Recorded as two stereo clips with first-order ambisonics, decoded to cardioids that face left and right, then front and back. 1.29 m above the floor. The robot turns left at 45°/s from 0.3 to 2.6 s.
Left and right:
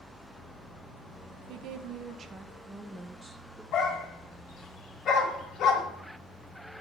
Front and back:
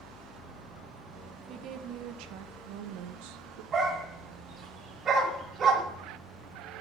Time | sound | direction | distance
1.5 | a woman speaking | 125° right | 0.6 m
3.7 | a dog barking | 125° left | 1.4 m